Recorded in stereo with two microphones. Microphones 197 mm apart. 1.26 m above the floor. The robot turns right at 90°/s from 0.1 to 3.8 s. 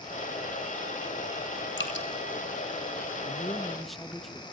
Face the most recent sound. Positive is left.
turn(degrees=180)